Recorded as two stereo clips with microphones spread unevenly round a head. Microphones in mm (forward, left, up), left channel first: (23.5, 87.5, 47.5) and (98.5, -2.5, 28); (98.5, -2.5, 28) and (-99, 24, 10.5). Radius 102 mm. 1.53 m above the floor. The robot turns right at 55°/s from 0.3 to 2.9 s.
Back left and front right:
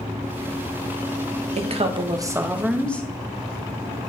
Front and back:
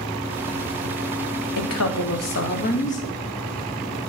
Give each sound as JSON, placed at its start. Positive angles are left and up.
{"t": 1.6, "sound": "a woman speaking", "azimuth_deg": -25, "distance_m": 1.5}